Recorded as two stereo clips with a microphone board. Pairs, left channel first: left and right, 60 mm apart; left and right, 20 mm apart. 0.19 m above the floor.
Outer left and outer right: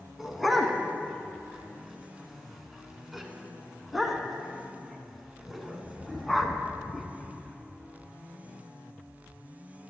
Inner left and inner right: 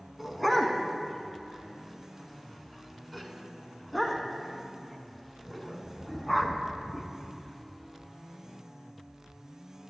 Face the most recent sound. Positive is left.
turn(degrees=0)  # may be behind; listen again after turning